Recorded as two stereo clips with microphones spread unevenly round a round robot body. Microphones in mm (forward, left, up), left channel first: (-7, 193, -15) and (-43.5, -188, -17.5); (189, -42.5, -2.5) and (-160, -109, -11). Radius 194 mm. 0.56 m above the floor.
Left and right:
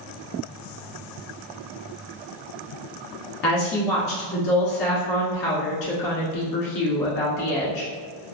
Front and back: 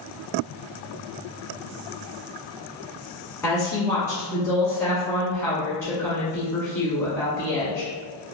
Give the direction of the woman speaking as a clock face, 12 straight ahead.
9 o'clock.